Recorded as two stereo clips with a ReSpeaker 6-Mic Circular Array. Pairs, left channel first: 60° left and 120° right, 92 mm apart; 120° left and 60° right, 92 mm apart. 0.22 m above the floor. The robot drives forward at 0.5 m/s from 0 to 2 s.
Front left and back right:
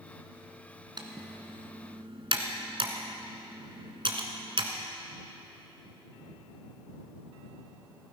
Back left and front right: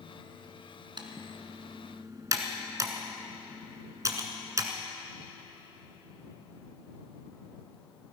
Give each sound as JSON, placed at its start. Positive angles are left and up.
{"t": 1.0, "sound": "typing on a keyboard", "azimuth_deg": -90, "distance_m": 1.4}